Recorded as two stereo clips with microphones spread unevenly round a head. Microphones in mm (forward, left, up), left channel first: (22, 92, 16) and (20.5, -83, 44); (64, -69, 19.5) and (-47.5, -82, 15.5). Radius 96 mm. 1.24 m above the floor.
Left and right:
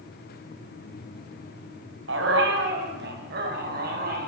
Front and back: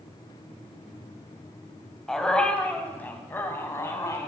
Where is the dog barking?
80° right, 4 m; by 4.3 s 55° right, 5.5 m.